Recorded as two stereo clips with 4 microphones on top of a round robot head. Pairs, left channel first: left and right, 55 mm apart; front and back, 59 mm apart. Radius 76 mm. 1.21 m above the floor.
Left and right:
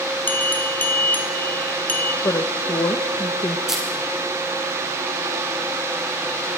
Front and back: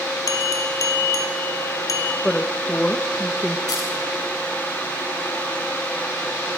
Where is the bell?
30° left, 2 m.